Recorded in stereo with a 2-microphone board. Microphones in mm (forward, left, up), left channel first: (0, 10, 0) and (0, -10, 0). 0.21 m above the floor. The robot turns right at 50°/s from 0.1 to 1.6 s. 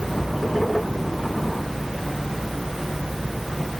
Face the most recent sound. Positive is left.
No sound to turn to.